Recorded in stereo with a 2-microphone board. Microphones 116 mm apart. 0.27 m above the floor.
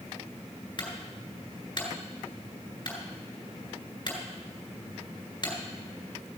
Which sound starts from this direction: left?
A clunk, at 0.8 s.